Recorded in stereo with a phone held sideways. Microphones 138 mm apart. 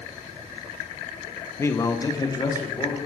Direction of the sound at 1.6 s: 20° left (ahead or behind).